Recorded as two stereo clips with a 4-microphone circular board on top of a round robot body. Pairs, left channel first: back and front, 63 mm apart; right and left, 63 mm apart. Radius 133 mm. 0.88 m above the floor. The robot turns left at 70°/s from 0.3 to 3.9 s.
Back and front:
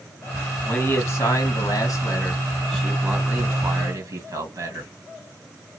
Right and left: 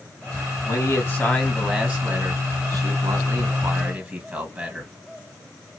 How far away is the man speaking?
About 1.9 m.